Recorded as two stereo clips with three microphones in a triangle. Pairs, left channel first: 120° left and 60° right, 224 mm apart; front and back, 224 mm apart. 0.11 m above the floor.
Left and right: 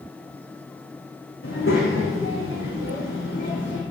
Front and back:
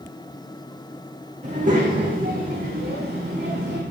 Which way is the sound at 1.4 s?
125° left.